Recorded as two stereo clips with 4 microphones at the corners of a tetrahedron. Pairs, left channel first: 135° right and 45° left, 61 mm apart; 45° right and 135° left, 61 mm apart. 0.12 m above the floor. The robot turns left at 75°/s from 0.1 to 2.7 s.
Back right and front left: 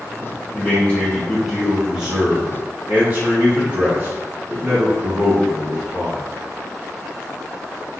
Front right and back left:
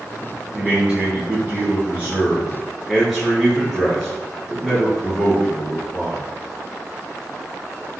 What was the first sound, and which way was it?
A man speaking, 150° right.